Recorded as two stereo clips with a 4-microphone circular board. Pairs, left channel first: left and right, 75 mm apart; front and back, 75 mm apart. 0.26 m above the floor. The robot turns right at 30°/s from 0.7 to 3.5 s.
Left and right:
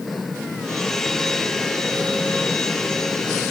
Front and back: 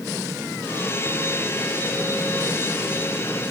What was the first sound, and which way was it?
Only background noise.